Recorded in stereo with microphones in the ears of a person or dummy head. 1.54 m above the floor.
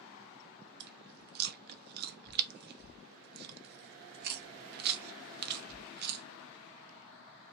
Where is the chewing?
55° right (ahead or behind), 0.5 m.